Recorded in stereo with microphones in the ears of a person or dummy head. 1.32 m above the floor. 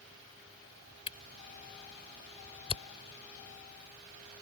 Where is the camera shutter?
30° left (ahead or behind).